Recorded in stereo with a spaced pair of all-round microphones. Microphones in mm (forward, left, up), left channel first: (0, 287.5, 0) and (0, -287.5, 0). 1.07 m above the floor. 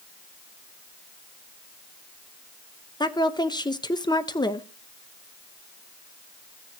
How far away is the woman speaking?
About 0.7 m.